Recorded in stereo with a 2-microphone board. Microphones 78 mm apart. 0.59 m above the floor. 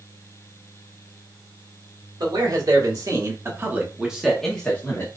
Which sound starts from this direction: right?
A man speaking, at 2.2 s.